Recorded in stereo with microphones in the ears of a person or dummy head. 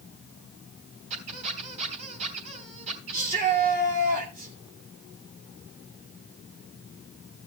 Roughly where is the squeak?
Right.